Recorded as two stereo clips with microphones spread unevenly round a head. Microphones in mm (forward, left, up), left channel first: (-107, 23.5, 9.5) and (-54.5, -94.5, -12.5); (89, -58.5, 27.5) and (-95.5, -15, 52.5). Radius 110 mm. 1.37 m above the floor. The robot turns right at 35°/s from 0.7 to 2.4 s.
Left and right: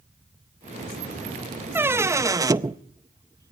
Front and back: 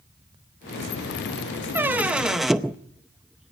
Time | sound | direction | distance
1.8 | a squeak | 145° right | 0.6 m